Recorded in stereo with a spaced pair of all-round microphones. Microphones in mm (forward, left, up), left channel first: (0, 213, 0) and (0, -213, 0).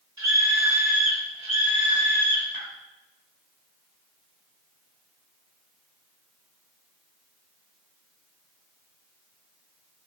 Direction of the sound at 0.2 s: 35° right (ahead or behind).